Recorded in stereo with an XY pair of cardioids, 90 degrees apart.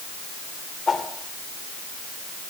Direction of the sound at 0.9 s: 35° left.